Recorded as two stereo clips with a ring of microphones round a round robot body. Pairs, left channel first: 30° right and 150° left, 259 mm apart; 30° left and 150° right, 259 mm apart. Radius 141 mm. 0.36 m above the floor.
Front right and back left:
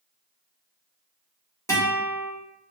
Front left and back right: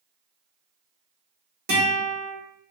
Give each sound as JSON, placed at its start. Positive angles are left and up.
{"t": 1.7, "sound": "a guitar", "azimuth_deg": -105, "distance_m": 1.4}